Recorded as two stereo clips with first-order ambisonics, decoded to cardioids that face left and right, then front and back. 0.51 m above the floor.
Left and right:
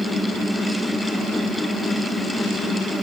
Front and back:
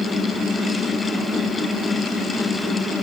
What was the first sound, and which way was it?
Only background noise.